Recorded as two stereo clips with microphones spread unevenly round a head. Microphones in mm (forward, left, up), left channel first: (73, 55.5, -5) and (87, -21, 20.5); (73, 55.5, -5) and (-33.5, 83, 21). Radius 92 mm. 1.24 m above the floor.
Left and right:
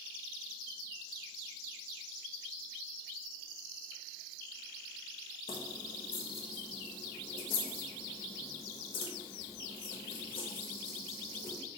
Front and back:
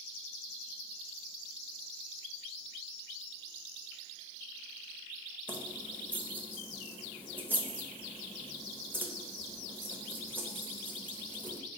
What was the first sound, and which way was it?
Keys jangling, 100° left.